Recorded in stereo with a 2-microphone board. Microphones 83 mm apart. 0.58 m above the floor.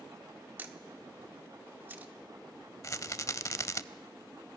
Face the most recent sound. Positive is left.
turn(degrees=40)  # may be behind; listen again after turning